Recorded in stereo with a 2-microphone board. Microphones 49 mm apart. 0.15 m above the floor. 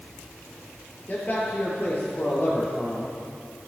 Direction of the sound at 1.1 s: 30° left (ahead or behind).